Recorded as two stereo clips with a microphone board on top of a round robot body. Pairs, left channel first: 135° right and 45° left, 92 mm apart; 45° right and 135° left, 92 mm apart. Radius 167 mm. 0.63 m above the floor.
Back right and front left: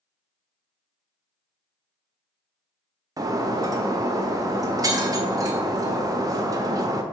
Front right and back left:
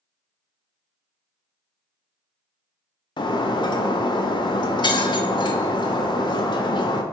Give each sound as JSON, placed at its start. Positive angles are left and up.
{"t": 3.2, "sound": "breaking glass", "azimuth_deg": -5, "distance_m": 0.5}